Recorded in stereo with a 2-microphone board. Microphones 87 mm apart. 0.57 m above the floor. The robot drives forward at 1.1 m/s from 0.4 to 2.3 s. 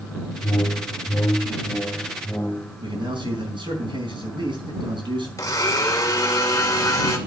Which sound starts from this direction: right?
A man speaking, at 2.8 s.